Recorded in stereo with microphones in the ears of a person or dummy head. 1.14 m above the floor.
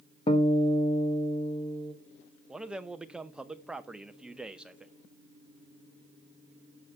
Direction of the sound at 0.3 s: 30° left (ahead or behind).